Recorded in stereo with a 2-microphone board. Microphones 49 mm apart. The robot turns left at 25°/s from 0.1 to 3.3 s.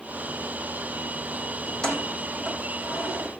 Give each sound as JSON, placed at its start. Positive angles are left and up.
{"t": 1.7, "sound": "keys jangling", "side_deg": 20, "distance_m": 6.0}